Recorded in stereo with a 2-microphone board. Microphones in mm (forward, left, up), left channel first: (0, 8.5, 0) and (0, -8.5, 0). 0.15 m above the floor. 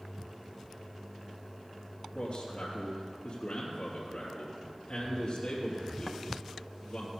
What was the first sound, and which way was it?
A man speaking, 60° left (ahead or behind).